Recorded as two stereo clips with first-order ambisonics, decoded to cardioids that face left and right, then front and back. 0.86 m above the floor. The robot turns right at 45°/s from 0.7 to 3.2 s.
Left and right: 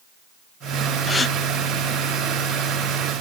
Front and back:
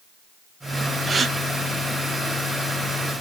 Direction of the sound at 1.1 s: 140° left.